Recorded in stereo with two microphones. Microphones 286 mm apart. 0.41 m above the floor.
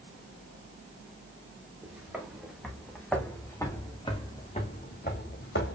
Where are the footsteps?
5° right (ahead or behind), 2.5 m; by 5.8 s 50° left (ahead or behind), 1.2 m.